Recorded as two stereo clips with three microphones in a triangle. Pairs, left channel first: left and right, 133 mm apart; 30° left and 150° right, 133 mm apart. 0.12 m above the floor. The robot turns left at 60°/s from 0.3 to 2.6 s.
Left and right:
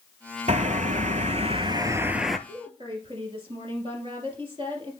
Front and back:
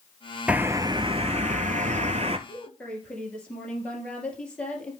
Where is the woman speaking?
45° right, 2.5 m; by 4.9 s 50° right, 2.5 m.